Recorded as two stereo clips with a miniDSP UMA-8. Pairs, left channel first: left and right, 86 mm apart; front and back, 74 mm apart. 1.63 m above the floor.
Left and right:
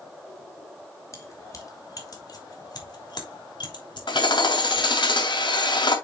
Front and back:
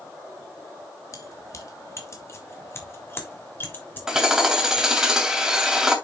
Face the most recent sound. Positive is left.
turn(degrees=100)